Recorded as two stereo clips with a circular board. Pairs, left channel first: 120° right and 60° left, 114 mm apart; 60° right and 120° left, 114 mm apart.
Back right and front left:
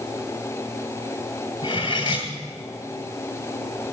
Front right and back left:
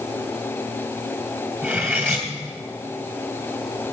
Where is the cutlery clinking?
170° right, 2 m.